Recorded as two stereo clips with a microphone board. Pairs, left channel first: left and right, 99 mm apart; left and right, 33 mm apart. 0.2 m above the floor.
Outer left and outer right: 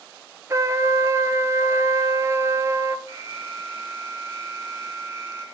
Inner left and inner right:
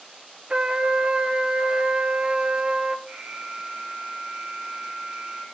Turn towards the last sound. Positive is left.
turn(degrees=-30)  # may be behind; listen again after turning